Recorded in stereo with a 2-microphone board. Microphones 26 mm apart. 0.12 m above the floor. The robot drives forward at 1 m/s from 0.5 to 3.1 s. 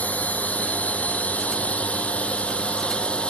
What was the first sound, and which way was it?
A drone, 75° left (ahead or behind).